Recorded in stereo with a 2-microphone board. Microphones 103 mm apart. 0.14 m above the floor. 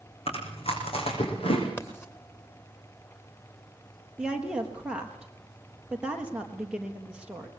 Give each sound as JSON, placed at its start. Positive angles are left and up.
{"t": 0.3, "sound": "chewing", "side_deg": 70, "distance_m": 6.5}
{"t": 1.8, "sound": "writing", "side_deg": 20, "distance_m": 2.5}
{"t": 4.2, "sound": "a woman speaking", "side_deg": -10, "distance_m": 3.5}